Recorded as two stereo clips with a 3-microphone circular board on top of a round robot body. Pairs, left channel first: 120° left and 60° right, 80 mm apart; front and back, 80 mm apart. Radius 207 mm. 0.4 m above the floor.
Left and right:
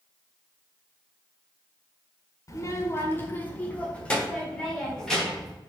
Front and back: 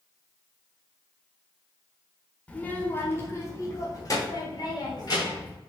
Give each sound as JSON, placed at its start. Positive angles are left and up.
{"t": 2.5, "sound": "a child speaking", "azimuth_deg": 75, "distance_m": 1.6}